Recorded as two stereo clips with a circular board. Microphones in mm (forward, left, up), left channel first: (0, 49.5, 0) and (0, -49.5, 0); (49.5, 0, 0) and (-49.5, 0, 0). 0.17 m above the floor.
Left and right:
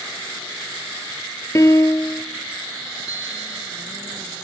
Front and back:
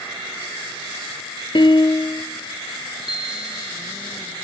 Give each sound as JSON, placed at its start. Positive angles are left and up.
{"t": 1.6, "sound": "a piano", "azimuth_deg": 35, "distance_m": 0.6}
{"t": 3.1, "sound": "a bicycle bell", "azimuth_deg": -170, "distance_m": 4.5}